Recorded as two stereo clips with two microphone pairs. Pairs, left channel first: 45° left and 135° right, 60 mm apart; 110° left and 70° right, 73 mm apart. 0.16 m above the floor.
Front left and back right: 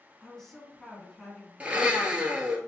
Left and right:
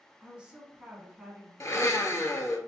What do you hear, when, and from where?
0.2 s a woman speaking: 20° right, 1.1 m
1.6 s a blender: 155° left, 0.8 m